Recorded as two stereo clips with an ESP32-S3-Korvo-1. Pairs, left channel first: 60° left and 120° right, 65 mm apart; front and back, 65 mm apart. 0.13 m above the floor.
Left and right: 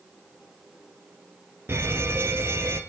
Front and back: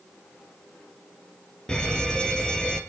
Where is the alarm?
75° right, 2.5 m.